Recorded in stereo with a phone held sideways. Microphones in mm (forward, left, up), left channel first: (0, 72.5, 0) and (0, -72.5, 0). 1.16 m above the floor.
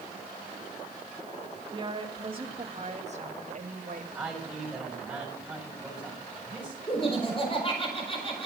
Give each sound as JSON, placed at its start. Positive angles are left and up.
{"t": 1.7, "sound": "a woman speaking", "side_deg": -25, "distance_m": 2.5}
{"t": 4.2, "sound": "a man speaking", "side_deg": 0, "distance_m": 6.5}
{"t": 6.9, "sound": "laughter", "side_deg": 35, "distance_m": 5.0}